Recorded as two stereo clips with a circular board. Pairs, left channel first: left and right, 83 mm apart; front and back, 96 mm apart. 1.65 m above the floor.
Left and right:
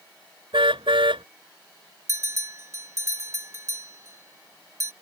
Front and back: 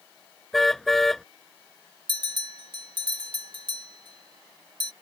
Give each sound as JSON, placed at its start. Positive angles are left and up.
{"t": 0.5, "sound": "a car horn", "azimuth_deg": -85}
{"t": 2.1, "sound": "a bell", "azimuth_deg": -145}